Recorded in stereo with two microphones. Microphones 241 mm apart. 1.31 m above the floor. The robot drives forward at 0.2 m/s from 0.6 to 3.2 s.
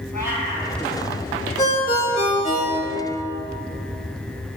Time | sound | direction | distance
0.1 | a cat meowing | 40° left (ahead or behind) | 2.5 m
1.6 | a ringtone | 30° left (ahead or behind) | 1.9 m